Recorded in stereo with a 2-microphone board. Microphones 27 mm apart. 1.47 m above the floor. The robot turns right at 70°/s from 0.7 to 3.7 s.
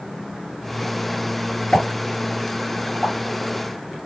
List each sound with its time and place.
1.7 s a pop: 40° left (ahead or behind), 2 m; by 3.1 s 35° right (ahead or behind), 2 m